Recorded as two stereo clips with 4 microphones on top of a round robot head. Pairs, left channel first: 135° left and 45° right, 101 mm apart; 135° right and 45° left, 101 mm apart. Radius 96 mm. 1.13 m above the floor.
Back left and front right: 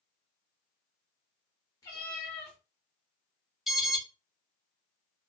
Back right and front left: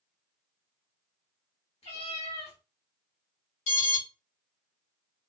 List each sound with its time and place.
1.8 s a cat meowing: 170° right, 1.0 m
3.7 s an alarm: 130° right, 1.2 m